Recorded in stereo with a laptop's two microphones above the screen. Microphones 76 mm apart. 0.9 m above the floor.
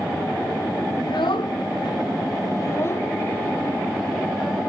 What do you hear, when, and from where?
1.0 s a child speaking: 80° left, 1.1 m; by 4.6 s centre (ahead or behind), 1.4 m